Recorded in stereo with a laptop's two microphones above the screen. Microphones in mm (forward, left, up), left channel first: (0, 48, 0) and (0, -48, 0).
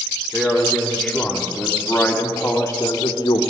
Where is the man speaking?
5° right (ahead or behind), 3 m; by 3.4 s 50° left (ahead or behind), 1.1 m.